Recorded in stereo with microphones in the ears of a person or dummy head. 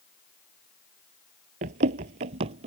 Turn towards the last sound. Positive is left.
turn(degrees=-40)  # may be behind; listen again after turning